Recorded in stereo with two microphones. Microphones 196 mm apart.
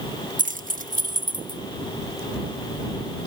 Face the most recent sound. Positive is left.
turn(degrees=-40)  # may be behind; listen again after turning